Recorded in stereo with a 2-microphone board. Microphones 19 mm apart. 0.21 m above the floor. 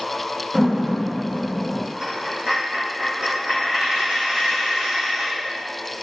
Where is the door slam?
50° right (ahead or behind), 2 m.